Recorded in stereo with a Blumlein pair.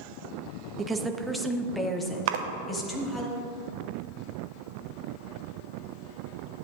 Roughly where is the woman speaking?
Ahead.